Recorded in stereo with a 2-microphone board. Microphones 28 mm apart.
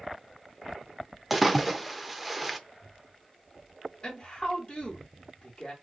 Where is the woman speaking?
20° left (ahead or behind), 1.9 m.